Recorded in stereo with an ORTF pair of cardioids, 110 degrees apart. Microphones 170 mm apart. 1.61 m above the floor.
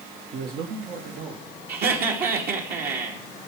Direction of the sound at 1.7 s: 65° right.